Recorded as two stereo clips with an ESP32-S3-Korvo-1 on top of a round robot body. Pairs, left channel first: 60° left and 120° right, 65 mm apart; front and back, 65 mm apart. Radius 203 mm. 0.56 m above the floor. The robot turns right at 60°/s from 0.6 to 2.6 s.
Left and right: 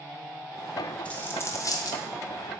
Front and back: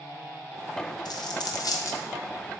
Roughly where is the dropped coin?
Ahead.